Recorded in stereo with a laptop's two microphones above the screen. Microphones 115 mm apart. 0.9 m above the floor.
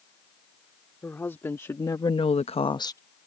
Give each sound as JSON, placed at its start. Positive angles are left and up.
{"t": 1.0, "sound": "a woman speaking", "side_deg": 20}